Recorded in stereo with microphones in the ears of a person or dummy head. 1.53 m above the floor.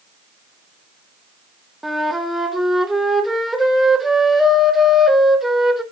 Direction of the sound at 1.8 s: Centre (ahead or behind).